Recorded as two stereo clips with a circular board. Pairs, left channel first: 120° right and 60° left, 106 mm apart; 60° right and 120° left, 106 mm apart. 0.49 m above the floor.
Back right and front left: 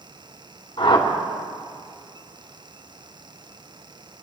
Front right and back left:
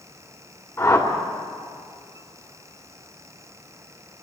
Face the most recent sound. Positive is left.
turn(degrees=-120)